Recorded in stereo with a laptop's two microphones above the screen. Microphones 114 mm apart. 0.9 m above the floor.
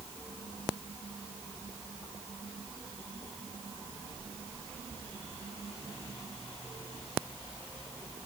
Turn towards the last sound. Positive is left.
No sound to turn to.